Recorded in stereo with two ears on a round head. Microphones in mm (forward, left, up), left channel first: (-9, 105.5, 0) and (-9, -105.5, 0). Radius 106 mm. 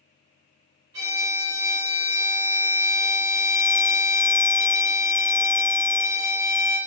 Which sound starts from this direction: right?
A violin, at 0.9 s.